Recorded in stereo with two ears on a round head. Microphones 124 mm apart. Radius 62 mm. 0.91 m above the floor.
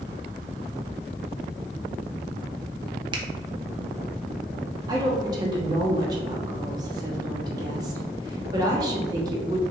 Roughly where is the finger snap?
Right.